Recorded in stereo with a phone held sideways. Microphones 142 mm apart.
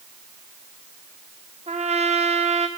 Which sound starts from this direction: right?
A trumpet, at 1.7 s.